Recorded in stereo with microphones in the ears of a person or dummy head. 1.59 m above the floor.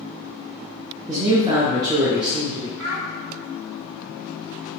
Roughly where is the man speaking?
Right.